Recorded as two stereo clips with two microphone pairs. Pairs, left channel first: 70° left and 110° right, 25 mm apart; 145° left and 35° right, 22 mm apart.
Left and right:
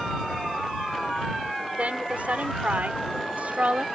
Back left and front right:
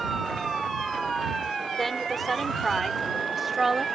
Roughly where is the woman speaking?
Behind right.